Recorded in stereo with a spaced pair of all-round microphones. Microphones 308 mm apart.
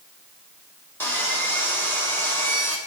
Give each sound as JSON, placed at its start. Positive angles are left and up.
{"t": 1.0, "sound": "sawing", "side_deg": 5, "distance_m": 3.0}